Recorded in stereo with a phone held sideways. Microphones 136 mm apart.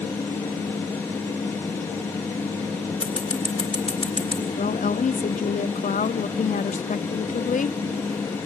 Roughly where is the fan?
Centre.